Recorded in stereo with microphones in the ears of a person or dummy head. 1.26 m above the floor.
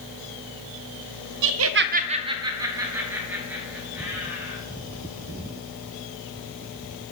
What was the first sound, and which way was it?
Laughter, 60° right (ahead or behind).